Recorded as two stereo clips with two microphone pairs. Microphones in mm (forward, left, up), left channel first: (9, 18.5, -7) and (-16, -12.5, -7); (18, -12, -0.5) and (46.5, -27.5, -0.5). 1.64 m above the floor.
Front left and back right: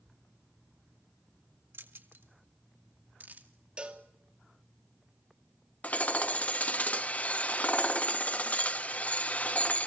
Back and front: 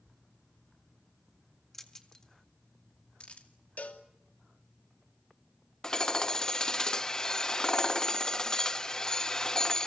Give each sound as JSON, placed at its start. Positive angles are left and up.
{"t": 1.7, "sound": "keys jangling", "azimuth_deg": -130, "distance_m": 1.8}
{"t": 3.8, "sound": "a cowbell", "azimuth_deg": 175, "distance_m": 2.5}
{"t": 5.8, "sound": "hammering", "azimuth_deg": 90, "distance_m": 0.8}